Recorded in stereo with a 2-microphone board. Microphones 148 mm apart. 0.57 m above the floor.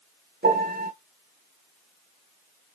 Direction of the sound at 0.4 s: 85° right.